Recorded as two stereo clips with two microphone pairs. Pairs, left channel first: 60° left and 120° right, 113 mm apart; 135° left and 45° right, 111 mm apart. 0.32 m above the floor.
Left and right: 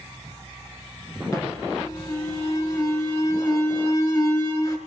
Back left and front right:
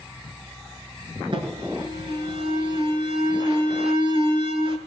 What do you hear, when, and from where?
1.3 s an alarm: straight ahead, 5.5 m